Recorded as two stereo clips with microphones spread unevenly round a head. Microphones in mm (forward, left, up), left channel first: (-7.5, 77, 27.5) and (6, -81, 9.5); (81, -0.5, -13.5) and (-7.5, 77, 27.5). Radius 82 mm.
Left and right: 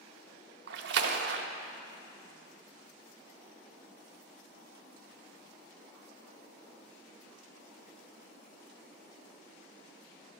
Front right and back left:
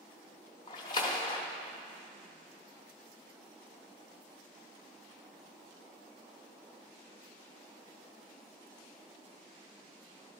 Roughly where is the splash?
Right.